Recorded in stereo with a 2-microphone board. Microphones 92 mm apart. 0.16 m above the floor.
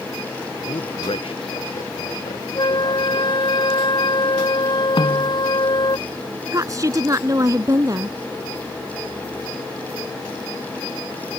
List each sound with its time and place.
0.7 s a man speaking: 80° left; by 3.3 s 85° left
2.5 s a flute: 55° left (ahead or behind)
5.0 s a snare drum: 60° left (ahead or behind)
6.5 s a woman speaking: 40° right (ahead or behind)